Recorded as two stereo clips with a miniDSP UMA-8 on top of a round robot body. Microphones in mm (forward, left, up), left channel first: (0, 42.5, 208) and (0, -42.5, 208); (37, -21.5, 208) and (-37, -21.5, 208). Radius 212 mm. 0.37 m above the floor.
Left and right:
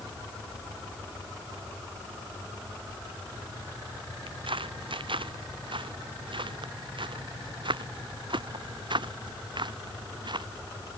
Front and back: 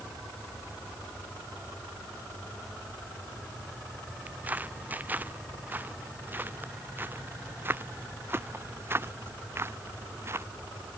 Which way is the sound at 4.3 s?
110° right.